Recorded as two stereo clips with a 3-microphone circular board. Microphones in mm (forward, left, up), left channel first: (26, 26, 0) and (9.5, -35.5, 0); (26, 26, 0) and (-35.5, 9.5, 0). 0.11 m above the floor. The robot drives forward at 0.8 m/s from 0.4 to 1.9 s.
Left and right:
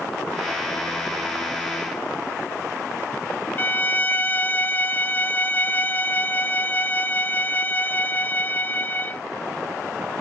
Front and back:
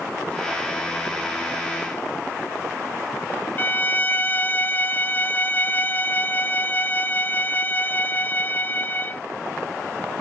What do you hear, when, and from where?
3.6 s a violin: 45° left